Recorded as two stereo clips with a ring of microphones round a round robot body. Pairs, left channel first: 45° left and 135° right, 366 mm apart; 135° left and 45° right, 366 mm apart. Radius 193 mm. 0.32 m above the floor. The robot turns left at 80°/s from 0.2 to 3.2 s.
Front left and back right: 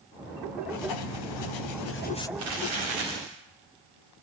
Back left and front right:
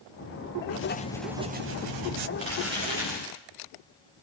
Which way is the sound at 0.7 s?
90° left.